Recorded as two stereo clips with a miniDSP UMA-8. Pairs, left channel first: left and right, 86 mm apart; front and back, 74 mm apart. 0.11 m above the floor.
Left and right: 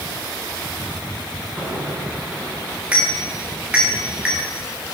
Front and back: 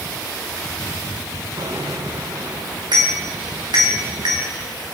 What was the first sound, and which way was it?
A bicycle bell, 165° right.